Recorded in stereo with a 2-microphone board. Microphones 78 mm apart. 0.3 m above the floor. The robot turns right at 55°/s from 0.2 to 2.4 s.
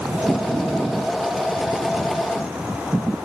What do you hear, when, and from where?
Only background noise.